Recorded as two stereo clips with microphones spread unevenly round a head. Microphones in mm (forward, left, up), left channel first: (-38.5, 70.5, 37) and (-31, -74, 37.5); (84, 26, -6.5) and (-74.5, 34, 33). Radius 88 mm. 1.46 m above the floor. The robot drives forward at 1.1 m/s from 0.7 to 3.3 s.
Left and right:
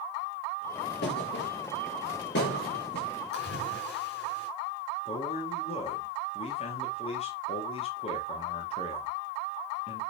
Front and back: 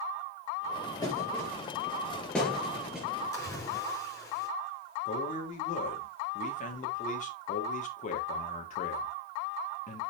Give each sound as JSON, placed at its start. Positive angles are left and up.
{"t": 1.0, "sound": "a thud", "azimuth_deg": 70, "distance_m": 5.5}
{"t": 3.3, "sound": "a splash", "azimuth_deg": 70, "distance_m": 6.0}
{"t": 5.0, "sound": "a man speaking", "azimuth_deg": 40, "distance_m": 3.5}